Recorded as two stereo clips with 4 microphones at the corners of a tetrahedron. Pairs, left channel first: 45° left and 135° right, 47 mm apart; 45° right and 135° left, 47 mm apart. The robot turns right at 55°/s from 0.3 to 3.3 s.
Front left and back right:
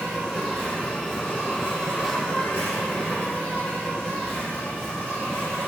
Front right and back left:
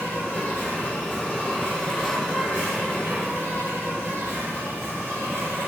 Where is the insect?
45° right, 1.3 m; by 5.7 s 120° left, 1.3 m.